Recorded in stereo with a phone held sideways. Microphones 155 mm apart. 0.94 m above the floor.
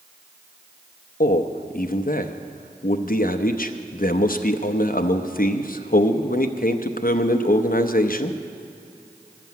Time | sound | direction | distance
1.2 | a man speaking | 65° left (ahead or behind) | 0.7 m